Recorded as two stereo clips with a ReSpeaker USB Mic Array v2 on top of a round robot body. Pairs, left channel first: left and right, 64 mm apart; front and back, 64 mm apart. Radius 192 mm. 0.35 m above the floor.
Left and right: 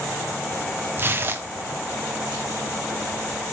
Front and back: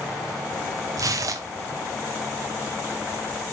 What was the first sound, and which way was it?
Tearing paper, 145° right.